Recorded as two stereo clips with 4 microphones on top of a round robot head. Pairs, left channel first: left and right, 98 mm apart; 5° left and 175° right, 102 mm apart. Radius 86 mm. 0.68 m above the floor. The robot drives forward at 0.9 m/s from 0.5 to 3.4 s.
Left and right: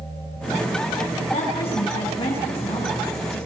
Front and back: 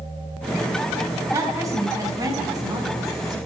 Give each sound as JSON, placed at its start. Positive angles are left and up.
{"t": 1.3, "sound": "a woman speaking", "azimuth_deg": 125, "distance_m": 7.0}